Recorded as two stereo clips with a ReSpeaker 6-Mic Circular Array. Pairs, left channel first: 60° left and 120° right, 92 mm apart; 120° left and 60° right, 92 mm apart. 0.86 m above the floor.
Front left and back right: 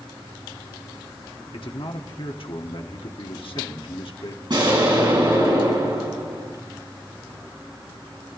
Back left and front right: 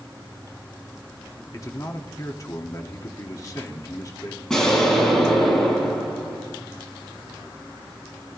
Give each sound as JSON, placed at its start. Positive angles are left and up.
{"t": 1.5, "sound": "a man speaking", "azimuth_deg": 70, "distance_m": 1.6}
{"t": 4.5, "sound": "an explosion", "azimuth_deg": -155, "distance_m": 4.5}